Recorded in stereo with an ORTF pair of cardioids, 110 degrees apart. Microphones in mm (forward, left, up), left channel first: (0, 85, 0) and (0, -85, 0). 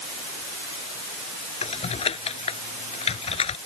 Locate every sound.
1.6 s typing on a keyboard: 35° left